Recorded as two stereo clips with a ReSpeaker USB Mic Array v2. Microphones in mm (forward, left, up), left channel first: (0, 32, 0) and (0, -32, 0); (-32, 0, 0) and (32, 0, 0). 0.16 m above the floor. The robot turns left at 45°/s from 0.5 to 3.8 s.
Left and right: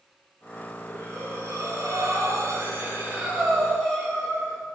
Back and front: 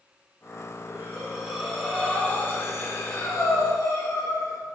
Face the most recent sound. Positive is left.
turn(degrees=175)